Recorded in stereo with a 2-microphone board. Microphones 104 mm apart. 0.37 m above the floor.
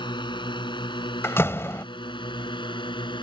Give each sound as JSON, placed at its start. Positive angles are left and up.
{"t": 0.0, "sound": "a drone", "side_deg": 50}
{"t": 1.2, "sound": "a door slam", "side_deg": 25}